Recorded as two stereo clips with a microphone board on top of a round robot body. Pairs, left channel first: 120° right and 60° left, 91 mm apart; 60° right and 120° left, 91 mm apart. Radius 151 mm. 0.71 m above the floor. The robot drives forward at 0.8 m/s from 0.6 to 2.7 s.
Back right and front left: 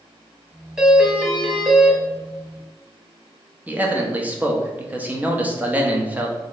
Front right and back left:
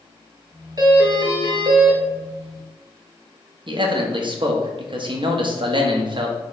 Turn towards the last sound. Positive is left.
turn(degrees=130)